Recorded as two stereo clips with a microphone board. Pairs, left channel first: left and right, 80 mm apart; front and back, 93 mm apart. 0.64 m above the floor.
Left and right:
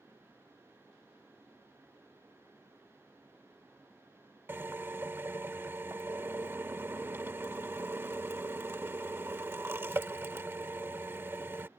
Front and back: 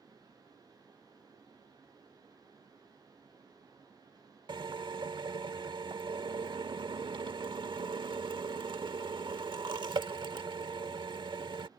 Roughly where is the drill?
Behind right.